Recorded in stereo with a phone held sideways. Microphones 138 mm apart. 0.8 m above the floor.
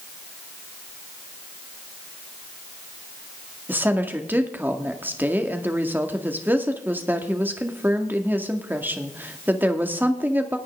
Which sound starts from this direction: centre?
A woman speaking, at 3.7 s.